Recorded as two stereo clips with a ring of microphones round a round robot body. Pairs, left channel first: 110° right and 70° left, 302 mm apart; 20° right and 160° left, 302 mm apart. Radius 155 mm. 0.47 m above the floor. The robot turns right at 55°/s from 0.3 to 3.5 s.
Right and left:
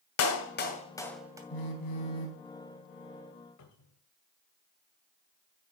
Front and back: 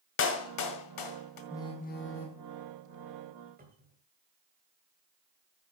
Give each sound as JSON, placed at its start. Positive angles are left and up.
{"t": 0.2, "sound": "a clap", "azimuth_deg": -70, "distance_m": 1.9}
{"t": 1.5, "sound": "a phone buzzing", "azimuth_deg": -105, "distance_m": 2.0}
{"t": 3.6, "sound": "a cupboard door", "azimuth_deg": -140, "distance_m": 3.0}